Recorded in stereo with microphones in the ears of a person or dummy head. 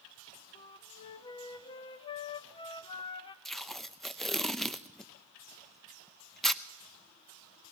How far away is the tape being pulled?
About 0.6 m.